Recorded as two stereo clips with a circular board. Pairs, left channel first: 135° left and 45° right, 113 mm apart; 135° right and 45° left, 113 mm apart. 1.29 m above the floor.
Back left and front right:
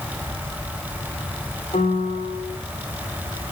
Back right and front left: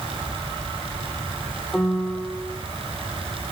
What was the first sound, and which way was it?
A piano, 140° left.